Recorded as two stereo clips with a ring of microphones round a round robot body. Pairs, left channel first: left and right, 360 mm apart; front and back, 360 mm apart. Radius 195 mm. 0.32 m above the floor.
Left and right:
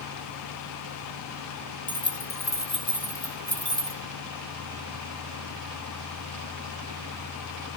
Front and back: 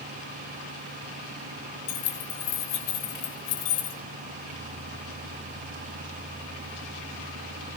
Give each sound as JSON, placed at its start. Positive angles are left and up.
{"t": 1.9, "sound": "keys jangling", "azimuth_deg": 20, "distance_m": 3.5}